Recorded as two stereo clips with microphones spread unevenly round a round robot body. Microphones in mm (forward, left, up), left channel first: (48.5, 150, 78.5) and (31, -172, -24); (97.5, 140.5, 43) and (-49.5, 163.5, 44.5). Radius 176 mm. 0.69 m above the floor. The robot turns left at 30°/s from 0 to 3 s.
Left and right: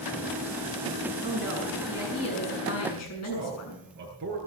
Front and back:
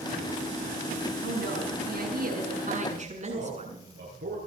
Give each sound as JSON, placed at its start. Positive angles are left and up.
{"t": 1.2, "sound": "a woman speaking", "azimuth_deg": -170, "distance_m": 7.5}
{"t": 3.2, "sound": "a man speaking", "azimuth_deg": -155, "distance_m": 8.5}